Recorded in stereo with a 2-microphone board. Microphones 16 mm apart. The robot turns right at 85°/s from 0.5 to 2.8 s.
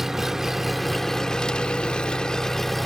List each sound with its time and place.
0.0 s an engine running: 30° right, 0.9 m; by 2.9 s 165° left, 0.9 m